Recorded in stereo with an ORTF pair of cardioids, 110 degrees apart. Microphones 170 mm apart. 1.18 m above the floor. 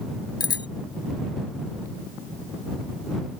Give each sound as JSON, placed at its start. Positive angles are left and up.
{"t": 0.4, "sound": "a bicycle bell", "azimuth_deg": 25}